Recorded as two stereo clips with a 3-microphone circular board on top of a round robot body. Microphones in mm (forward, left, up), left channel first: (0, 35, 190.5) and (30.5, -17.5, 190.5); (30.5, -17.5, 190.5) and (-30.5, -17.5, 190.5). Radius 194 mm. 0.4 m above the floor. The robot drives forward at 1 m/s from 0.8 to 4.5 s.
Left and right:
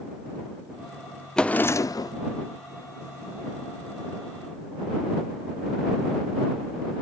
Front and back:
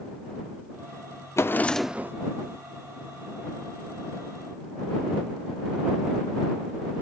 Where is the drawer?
40° left, 0.7 m; by 2.1 s 130° left, 0.6 m.